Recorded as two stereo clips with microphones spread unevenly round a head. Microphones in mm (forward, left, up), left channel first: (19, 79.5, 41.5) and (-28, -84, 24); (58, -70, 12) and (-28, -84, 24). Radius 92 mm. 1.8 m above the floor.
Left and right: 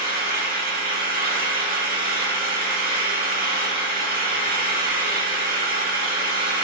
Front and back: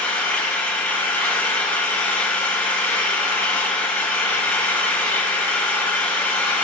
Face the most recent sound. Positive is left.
turn(degrees=-65)